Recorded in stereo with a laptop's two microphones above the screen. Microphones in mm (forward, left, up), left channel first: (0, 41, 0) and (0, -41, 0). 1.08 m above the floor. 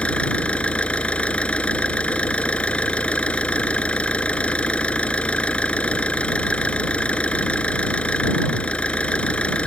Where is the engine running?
15° left (ahead or behind).